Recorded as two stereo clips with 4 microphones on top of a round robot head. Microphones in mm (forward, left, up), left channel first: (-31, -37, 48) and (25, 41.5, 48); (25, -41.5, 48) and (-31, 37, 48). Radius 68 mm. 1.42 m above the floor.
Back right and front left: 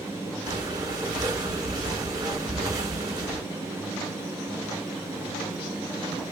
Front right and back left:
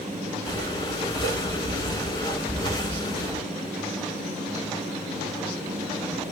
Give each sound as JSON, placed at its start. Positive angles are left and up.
{"t": 0.5, "sound": "breathing", "azimuth_deg": 0, "distance_m": 2.0}